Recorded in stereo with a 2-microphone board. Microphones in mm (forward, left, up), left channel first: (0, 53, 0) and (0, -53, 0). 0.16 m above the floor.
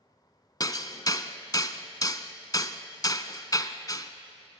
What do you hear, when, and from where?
0.6 s hammering: 35° left (ahead or behind), 0.9 m